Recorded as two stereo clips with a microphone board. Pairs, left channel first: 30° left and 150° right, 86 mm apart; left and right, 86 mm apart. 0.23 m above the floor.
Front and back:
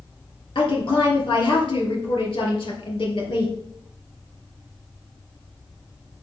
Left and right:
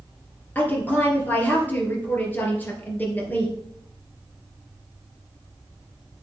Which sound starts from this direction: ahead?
A woman speaking, at 0.6 s.